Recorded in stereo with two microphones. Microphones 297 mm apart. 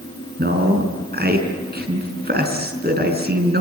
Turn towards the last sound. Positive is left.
turn(degrees=-35)  # may be behind; listen again after turning